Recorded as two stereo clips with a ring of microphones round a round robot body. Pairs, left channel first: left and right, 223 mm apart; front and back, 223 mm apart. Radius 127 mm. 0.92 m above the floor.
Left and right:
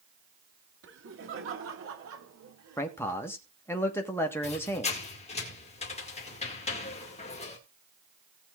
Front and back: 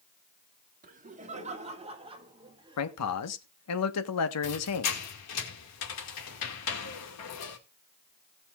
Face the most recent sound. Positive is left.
turn(degrees=25)